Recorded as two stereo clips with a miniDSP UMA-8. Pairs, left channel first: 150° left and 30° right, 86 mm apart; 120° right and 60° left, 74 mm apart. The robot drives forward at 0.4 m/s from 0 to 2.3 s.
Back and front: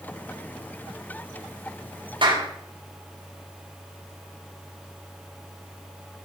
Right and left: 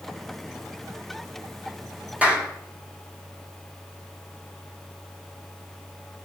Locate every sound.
2.2 s a clap: 10° right, 4 m